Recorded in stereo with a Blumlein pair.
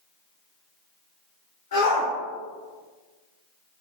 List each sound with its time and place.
1.7 s a shout: 60° left, 1.4 m